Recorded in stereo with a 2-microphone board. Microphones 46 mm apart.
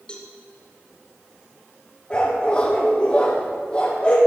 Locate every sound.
0.1 s a cowbell: 20° left (ahead or behind), 2 m
2.1 s a dog barking: 25° left (ahead or behind), 3.5 m